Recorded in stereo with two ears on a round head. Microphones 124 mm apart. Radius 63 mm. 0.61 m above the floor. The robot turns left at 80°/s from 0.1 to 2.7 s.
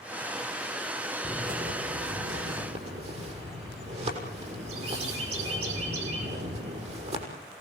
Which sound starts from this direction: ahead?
A bird, at 1.2 s.